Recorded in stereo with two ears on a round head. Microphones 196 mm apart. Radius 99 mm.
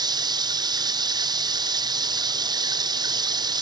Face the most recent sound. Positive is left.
turn(degrees=-20)  # may be behind; listen again after turning